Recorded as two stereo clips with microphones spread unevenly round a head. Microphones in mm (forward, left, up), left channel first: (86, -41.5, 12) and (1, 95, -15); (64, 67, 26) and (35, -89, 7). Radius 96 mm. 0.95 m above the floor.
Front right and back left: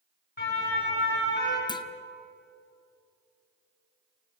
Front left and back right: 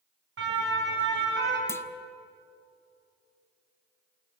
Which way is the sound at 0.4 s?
105° right.